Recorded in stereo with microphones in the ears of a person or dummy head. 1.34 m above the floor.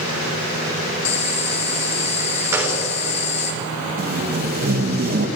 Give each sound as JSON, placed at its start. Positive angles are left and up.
{"t": 1.1, "sound": "boiling", "side_deg": 40, "distance_m": 2.5}
{"t": 2.5, "sound": "a gunshot", "side_deg": -10, "distance_m": 4.0}
{"t": 4.0, "sound": "tape being pulled", "side_deg": -45, "distance_m": 1.3}